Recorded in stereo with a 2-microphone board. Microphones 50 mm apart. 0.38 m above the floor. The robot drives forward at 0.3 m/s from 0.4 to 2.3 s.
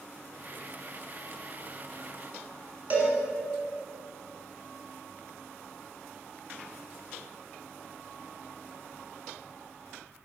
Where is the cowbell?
30° right (ahead or behind), 1.8 m.